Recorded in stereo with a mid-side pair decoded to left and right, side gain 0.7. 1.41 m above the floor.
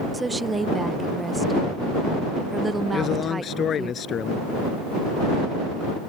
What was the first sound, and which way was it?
A woman speaking, 15° right.